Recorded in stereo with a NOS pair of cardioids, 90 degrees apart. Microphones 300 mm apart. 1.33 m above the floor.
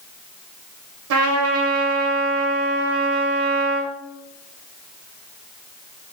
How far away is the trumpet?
About 0.8 m.